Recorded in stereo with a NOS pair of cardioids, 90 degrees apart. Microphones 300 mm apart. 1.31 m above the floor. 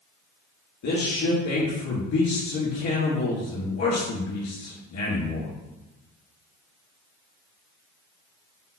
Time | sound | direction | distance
0.8 | a man speaking | 70° left | 2.0 m